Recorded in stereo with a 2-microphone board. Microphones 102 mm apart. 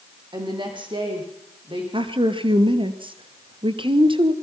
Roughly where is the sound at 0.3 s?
Right.